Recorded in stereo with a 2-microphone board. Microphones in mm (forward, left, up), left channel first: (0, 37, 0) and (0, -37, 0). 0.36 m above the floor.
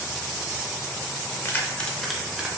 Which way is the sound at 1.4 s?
30° left (ahead or behind).